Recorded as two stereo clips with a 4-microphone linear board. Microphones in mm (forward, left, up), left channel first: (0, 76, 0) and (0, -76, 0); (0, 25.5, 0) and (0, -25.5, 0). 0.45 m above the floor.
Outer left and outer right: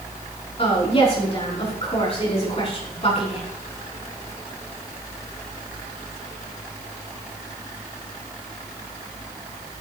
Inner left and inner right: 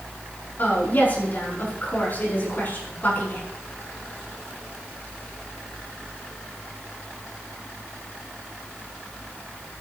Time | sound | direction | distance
0.6 | a woman speaking | 40° left (ahead or behind) | 5.5 m